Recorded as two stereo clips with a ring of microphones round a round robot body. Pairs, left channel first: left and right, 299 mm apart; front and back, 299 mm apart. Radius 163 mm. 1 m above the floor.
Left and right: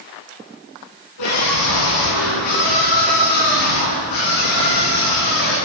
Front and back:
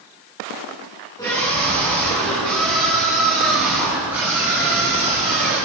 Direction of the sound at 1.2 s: 80° left.